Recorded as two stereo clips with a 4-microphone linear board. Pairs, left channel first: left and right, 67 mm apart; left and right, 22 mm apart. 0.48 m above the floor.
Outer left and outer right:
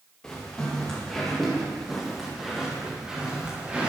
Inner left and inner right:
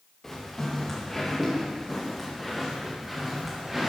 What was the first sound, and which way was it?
Footsteps, 10° left (ahead or behind).